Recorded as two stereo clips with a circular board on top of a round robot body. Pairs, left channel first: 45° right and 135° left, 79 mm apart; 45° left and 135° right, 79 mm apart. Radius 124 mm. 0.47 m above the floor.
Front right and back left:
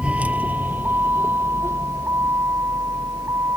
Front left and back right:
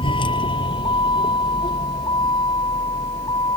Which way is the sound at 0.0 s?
60° left.